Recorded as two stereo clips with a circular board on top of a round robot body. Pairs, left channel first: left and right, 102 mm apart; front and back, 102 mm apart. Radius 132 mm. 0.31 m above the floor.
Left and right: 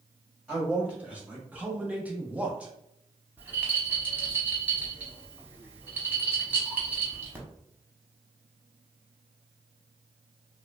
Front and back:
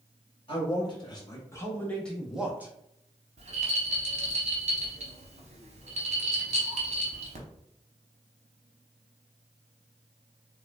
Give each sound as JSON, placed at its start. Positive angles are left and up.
{"t": 0.5, "sound": "a man speaking", "azimuth_deg": -15, "distance_m": 1.4}
{"t": 3.4, "sound": "a rattle", "azimuth_deg": -165, "distance_m": 0.6}